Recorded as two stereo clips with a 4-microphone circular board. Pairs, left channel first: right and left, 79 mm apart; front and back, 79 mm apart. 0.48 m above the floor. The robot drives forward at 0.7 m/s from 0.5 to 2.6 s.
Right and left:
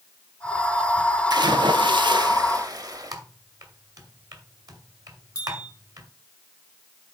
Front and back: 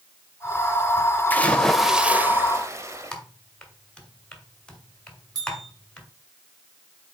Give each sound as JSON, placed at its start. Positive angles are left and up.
{"t": 1.3, "sound": "a splash", "azimuth_deg": 65, "distance_m": 0.9}
{"t": 3.1, "sound": "typing on a keyboard", "azimuth_deg": 75, "distance_m": 1.6}
{"t": 5.3, "sound": "a bell", "azimuth_deg": -145, "distance_m": 3.0}